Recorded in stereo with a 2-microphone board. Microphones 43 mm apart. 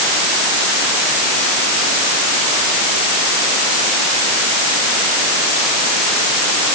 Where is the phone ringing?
No phone ringing in this recording.